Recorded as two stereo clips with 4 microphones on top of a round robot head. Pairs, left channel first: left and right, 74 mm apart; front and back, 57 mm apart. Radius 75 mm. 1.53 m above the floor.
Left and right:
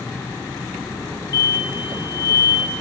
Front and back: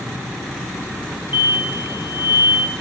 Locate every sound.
1.3 s an explosion: 130° left, 0.6 m